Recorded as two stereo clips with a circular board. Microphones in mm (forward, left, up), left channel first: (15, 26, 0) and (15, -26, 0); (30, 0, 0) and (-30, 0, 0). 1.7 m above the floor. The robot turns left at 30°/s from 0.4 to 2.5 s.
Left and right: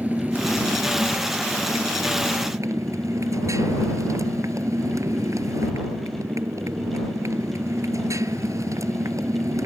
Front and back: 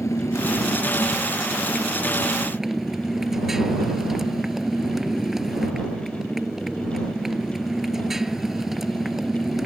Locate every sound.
0.0 s a motorcycle: 35° right; by 9.7 s 95° right